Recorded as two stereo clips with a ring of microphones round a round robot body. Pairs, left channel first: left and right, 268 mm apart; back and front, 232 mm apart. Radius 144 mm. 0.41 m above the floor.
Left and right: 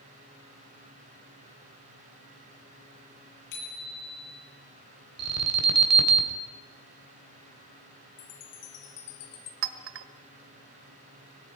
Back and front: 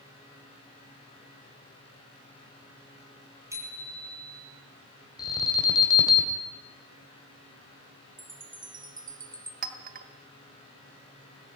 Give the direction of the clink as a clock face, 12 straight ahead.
2 o'clock.